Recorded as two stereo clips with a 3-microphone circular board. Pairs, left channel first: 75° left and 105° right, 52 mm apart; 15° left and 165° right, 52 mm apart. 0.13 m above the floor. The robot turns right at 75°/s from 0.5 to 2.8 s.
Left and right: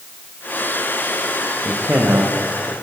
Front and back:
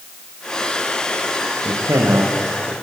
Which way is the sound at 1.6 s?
Straight behind.